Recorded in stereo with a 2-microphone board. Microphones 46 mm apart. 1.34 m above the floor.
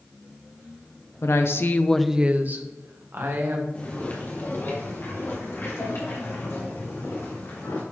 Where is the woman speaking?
70° left (ahead or behind), 1.0 m; by 3.6 s 60° right (ahead or behind), 2 m.